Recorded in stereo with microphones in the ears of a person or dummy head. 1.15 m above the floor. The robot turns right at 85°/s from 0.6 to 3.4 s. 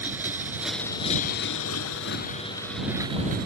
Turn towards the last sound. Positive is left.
turn(degrees=-130)